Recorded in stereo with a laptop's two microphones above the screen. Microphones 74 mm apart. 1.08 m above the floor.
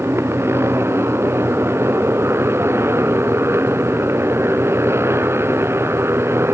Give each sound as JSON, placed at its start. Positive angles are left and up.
{"t": 0.0, "sound": "a motorcycle", "side_deg": -35}